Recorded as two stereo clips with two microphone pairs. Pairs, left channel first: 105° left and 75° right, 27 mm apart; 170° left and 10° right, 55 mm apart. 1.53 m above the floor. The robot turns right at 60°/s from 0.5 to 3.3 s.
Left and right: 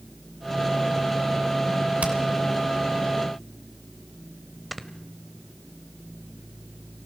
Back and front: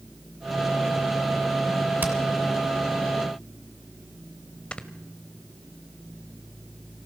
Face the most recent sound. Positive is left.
turn(degrees=-155)